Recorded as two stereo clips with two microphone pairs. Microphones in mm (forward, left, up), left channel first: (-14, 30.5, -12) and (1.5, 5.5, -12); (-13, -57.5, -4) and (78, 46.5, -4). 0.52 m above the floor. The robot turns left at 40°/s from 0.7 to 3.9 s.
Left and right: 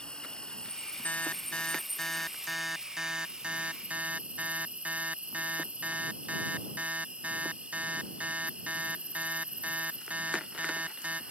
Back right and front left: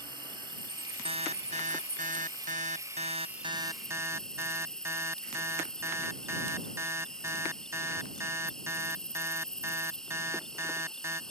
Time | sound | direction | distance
0.0 | an insect | 80° left | ?
1.1 | an alarm | 95° left | ?